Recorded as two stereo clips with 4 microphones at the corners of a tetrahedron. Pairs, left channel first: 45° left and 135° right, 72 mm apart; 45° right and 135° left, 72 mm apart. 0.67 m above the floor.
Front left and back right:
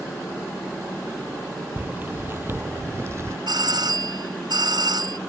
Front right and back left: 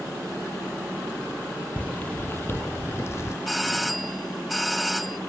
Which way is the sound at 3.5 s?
135° right.